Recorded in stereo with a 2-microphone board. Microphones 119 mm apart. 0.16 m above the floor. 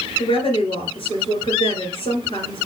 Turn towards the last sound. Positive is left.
turn(degrees=55)  # may be behind; listen again after turning